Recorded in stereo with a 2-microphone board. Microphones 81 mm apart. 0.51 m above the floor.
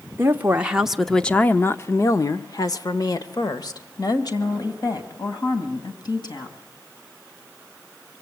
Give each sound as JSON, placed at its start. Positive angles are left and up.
{"t": 0.2, "sound": "a woman speaking", "side_deg": -25, "distance_m": 1.1}